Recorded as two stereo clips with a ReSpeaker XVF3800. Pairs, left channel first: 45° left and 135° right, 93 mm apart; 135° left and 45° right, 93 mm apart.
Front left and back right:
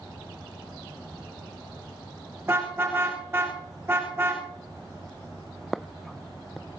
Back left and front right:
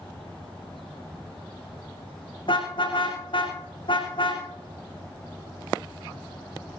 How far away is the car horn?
About 7.5 m.